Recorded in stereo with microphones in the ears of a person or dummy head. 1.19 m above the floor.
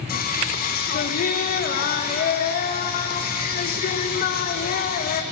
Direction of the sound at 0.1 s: 45° left (ahead or behind).